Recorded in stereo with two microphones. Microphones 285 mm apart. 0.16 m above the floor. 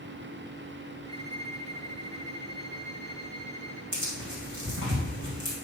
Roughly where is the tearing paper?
Right.